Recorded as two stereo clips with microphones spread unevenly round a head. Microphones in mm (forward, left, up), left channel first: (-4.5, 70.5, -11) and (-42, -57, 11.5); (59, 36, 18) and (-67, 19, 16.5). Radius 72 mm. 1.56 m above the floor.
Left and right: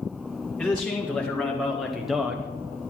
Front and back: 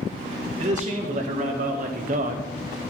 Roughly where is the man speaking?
Behind left.